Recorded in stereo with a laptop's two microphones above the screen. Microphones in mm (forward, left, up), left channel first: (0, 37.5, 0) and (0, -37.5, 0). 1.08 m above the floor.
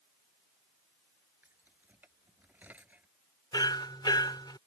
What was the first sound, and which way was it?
Keys jangling, 25° right (ahead or behind).